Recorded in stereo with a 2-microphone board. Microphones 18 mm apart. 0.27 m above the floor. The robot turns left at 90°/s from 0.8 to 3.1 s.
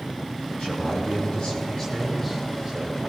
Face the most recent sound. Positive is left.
turn(degrees=-80)